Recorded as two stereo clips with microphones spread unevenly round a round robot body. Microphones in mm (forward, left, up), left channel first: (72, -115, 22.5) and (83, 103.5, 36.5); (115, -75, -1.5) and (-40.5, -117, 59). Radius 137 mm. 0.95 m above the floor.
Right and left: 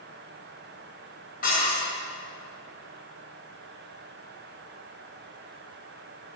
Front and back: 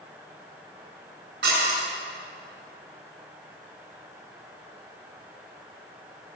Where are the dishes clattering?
155° right, 7.5 m.